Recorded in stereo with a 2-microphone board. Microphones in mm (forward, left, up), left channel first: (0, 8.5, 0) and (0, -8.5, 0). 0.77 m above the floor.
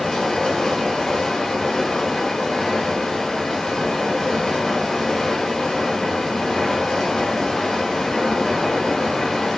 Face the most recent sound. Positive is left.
turn(degrees=25)  # may be behind; listen again after turning